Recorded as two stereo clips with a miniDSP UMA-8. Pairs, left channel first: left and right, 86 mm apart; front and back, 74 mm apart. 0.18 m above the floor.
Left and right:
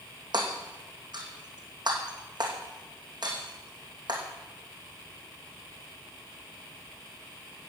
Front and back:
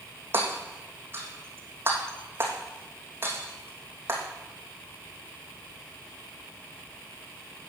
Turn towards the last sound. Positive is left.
turn(degrees=-120)